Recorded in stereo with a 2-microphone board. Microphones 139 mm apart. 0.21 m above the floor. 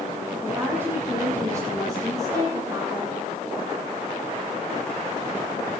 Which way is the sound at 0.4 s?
15° right (ahead or behind).